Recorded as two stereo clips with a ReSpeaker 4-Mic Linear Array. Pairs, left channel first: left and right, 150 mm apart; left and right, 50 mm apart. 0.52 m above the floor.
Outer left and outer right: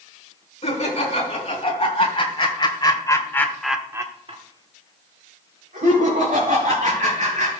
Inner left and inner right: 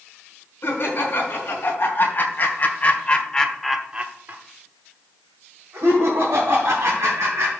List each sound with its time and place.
0.6 s laughter: 50° left (ahead or behind), 4.5 m; by 7.5 s 65° right (ahead or behind), 4.5 m